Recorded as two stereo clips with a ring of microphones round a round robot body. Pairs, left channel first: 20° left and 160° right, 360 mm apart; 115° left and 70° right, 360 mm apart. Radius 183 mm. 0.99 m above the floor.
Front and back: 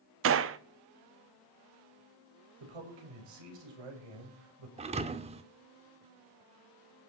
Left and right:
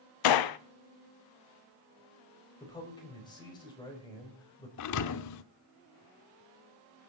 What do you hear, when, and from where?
0.2 s a gunshot: 145° left, 0.8 m
2.6 s a man speaking: 170° right, 5.5 m
4.8 s a thud: 135° left, 0.7 m